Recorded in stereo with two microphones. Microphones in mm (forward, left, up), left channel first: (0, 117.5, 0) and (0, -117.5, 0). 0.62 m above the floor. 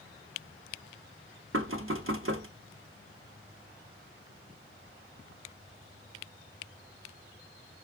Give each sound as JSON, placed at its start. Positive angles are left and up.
{"t": 1.5, "sound": "knocking", "side_deg": -65, "distance_m": 1.0}